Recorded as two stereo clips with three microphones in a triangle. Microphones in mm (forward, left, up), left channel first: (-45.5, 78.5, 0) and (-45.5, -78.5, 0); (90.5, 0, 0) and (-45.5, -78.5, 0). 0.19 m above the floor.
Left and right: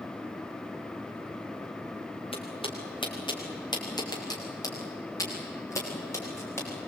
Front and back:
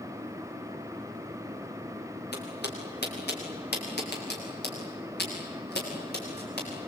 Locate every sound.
2.3 s footsteps: 35° left, 5.5 m; by 6.7 s 15° left, 9 m